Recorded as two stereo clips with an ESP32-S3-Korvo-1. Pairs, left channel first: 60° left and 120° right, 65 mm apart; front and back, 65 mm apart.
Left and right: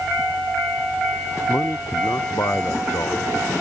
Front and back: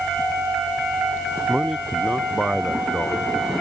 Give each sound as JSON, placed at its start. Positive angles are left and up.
{"t": 1.5, "sound": "a man speaking", "azimuth_deg": 95}